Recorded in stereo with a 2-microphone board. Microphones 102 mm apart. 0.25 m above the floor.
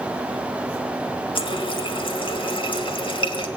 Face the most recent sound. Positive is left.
turn(degrees=55)  # may be behind; listen again after turning